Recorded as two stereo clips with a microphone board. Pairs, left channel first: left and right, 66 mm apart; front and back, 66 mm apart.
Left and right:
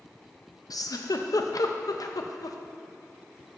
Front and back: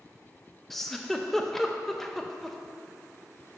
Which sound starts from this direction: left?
A giggle, at 0.7 s.